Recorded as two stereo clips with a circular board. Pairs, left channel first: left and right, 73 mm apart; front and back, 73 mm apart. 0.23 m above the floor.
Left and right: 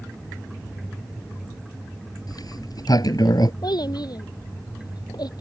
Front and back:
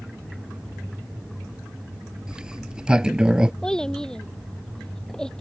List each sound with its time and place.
2.3 s a sliding door: 100° left
3.6 s a child speaking: 80° left